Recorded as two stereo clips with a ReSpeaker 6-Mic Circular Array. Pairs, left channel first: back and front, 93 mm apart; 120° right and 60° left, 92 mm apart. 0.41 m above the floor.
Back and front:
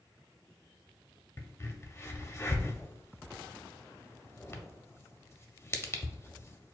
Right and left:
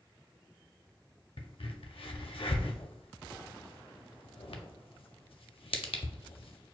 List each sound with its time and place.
1.4 s a crack: 120° right, 0.5 m